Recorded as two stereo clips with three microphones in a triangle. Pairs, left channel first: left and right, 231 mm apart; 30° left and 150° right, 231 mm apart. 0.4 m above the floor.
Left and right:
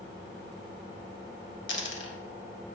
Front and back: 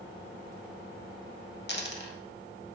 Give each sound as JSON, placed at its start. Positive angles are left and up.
{"t": 1.7, "sound": "a dropped coin", "azimuth_deg": 65, "distance_m": 0.6}